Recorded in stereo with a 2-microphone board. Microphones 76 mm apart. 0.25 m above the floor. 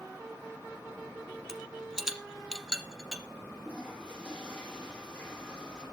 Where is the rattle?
5° right (ahead or behind), 1.4 m.